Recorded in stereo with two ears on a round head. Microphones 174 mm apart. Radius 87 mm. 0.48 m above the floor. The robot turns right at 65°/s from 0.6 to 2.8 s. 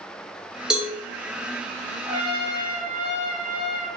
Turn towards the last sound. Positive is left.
turn(degrees=40)